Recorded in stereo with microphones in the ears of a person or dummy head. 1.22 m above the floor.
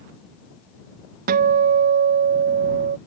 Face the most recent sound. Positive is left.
turn(degrees=-55)  # may be behind; listen again after turning